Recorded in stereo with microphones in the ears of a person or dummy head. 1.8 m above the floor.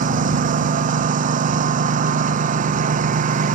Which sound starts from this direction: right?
A lawn mower, at 0.0 s.